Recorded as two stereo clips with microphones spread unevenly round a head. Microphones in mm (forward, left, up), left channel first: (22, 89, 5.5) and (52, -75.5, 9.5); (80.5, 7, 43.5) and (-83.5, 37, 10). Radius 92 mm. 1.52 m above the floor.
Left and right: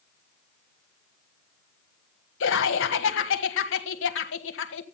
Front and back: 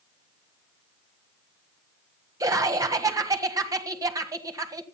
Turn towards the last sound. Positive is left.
turn(degrees=100)